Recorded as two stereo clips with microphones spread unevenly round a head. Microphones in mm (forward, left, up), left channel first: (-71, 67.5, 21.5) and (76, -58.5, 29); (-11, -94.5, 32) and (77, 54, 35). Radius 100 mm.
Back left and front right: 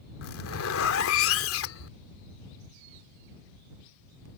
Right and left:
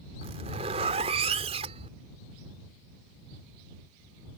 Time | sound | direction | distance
0.2 | a zipper | 120° left | ?